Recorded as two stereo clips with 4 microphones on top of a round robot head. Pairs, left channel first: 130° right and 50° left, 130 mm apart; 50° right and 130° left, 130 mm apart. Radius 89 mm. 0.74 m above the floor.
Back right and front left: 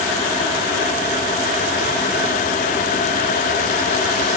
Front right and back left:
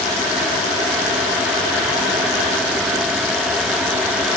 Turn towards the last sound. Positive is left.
No sound to turn to.